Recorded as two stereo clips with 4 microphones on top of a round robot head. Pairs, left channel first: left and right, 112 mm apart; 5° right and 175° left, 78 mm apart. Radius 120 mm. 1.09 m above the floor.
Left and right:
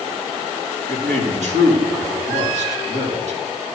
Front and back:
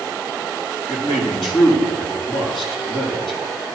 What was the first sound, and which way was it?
A man speaking, 90° right.